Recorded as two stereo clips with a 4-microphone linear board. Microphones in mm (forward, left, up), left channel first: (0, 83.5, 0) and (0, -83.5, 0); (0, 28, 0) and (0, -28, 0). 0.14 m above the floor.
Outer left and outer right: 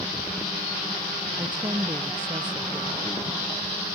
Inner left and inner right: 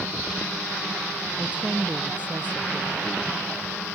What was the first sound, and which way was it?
A woman speaking, 25° right (ahead or behind).